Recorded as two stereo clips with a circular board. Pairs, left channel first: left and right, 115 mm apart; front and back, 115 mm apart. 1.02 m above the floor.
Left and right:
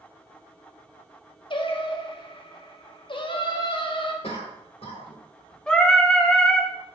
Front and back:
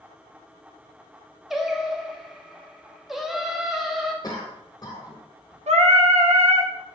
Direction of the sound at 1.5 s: 95° left.